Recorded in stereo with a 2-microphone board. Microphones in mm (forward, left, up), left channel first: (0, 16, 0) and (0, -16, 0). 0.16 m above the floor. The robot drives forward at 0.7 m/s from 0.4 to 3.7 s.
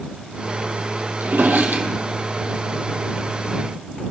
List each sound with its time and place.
1.2 s a drawer: 80° right, 2 m; by 2.5 s 65° right (ahead or behind), 2 m